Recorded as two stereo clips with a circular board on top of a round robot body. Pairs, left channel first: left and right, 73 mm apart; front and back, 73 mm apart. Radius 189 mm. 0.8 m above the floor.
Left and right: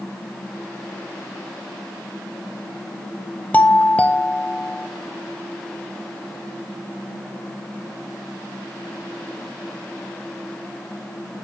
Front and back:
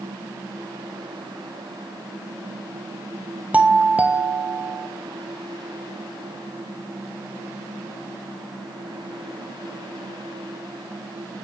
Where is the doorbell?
135° left, 1.5 m.